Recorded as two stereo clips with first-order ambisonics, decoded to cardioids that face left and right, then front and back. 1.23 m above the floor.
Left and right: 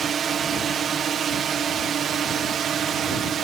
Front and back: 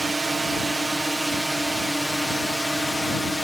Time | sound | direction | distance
0.0 | a drone | 115° right | ?